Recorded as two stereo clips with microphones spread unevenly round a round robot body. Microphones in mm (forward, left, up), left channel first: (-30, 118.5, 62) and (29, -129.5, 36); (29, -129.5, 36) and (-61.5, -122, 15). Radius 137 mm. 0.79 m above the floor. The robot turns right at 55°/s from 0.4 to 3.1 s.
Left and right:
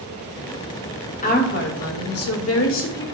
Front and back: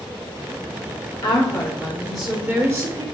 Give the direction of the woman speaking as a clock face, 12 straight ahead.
10 o'clock.